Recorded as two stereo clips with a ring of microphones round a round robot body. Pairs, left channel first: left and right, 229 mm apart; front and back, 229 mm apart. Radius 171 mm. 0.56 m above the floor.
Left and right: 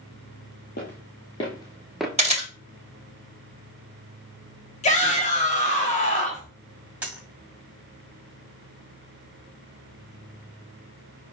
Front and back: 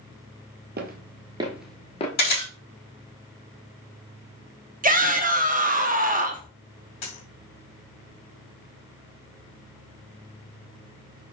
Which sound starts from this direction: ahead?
A dropped coin, at 7.0 s.